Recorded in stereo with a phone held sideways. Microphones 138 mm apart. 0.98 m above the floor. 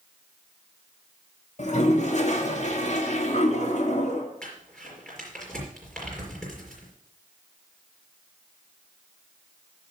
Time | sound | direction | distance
1.6 | a toilet flushing | 60° left (ahead or behind) | 2 m
4.4 | crumpling | 5° left (ahead or behind) | 5 m